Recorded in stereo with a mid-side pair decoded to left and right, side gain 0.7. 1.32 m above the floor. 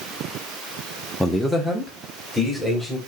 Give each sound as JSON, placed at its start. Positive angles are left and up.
{"t": 1.2, "sound": "a man speaking", "azimuth_deg": 5, "distance_m": 0.6}